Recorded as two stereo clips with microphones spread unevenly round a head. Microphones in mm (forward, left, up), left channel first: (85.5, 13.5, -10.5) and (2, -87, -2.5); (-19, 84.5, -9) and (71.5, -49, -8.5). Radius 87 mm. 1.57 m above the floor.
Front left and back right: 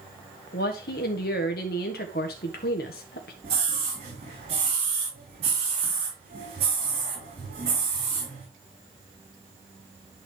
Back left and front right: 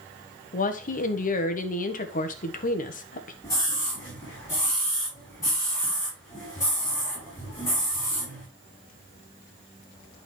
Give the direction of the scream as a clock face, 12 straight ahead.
5 o'clock.